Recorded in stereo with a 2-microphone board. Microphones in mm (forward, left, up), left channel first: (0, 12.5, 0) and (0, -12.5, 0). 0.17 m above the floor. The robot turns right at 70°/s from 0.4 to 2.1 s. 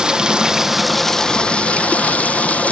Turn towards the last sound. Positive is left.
turn(degrees=85)